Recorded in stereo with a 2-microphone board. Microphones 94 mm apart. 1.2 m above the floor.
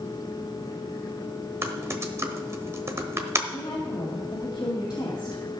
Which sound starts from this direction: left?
A woman speaking, at 3.5 s.